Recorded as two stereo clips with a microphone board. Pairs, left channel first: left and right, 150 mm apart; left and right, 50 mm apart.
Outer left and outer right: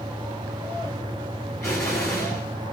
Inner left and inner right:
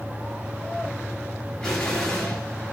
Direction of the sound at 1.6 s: 20° left (ahead or behind).